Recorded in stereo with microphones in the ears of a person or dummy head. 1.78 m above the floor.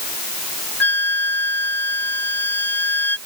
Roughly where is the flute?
Centre.